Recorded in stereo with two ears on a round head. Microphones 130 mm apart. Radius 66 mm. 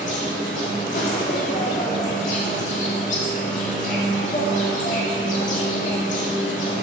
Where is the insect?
50° left (ahead or behind), 2.5 m.